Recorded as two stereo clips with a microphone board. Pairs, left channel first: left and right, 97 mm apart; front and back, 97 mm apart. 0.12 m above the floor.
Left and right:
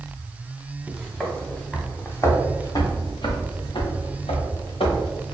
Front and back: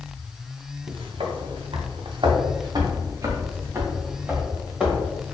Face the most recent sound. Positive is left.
turn(degrees=95)